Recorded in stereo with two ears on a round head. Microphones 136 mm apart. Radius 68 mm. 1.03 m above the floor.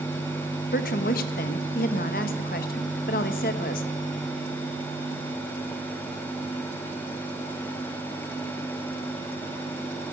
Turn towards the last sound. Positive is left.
turn(degrees=65)  # may be behind; listen again after turning